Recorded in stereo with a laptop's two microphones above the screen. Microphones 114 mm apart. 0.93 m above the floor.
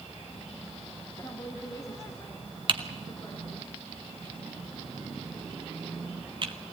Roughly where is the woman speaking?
Left.